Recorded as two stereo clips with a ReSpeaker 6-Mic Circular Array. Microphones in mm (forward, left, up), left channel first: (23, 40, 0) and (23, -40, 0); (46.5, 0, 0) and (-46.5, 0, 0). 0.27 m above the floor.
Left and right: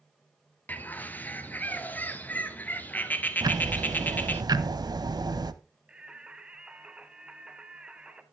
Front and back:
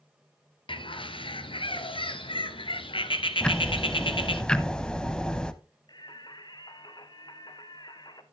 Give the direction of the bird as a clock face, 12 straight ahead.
11 o'clock.